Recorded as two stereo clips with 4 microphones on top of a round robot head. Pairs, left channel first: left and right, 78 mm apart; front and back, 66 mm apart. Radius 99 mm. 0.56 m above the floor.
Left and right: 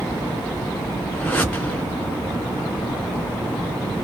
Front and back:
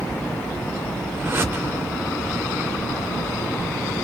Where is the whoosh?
145° left, 1.5 m.